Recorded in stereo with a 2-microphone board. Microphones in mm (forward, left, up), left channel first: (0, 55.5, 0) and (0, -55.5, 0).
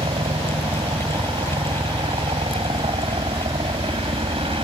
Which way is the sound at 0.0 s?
55° right (ahead or behind).